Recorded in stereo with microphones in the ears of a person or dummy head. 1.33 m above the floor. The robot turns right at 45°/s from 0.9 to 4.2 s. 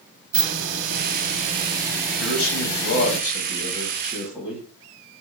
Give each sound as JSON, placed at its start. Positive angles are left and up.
{"t": 0.3, "sound": "a hiss", "azimuth_deg": -60, "distance_m": 1.0}
{"t": 2.2, "sound": "a man speaking", "azimuth_deg": 95, "distance_m": 1.7}